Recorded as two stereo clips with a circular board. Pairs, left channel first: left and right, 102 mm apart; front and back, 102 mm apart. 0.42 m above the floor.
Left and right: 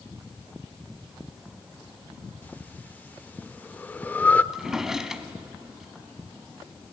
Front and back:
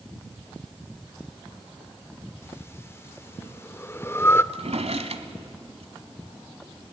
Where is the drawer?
175° right, 1.3 m.